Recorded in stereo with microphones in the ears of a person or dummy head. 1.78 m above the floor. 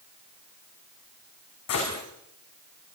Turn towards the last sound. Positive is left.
turn(degrees=75)  # may be behind; listen again after turning